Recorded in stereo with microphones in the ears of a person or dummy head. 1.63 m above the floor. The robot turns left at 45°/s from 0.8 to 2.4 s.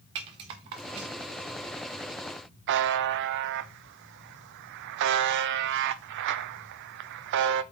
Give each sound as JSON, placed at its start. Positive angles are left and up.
{"t": 0.1, "sound": "a rattle", "side_deg": -25, "distance_m": 0.7}
{"t": 2.7, "sound": "a buzzer", "side_deg": -60, "distance_m": 0.6}